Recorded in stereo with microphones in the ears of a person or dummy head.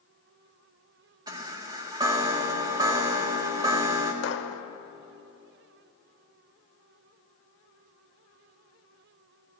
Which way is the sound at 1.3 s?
25° right (ahead or behind).